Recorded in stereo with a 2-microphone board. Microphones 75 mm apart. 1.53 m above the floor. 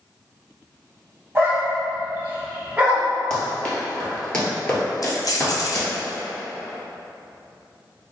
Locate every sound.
1.4 s a dog barking: 30° right (ahead or behind), 1.3 m; by 3.1 s 15° right (ahead or behind), 1.7 m
3.3 s running footsteps: 10° left (ahead or behind), 1.9 m; by 5.9 s 15° left (ahead or behind), 1.6 m
5.0 s keys jangling: 50° left (ahead or behind), 0.7 m